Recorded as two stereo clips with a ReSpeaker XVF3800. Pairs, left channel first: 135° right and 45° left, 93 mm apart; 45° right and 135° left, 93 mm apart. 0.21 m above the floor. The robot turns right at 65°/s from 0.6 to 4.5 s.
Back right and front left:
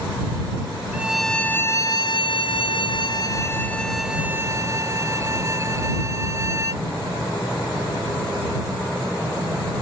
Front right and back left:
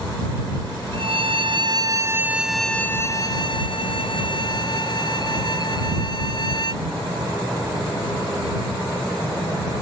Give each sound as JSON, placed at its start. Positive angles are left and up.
{"t": 0.9, "sound": "a violin", "azimuth_deg": 120}